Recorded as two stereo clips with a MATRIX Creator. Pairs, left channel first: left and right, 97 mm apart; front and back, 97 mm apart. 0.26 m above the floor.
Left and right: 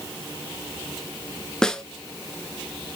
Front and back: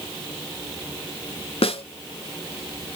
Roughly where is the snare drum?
Ahead.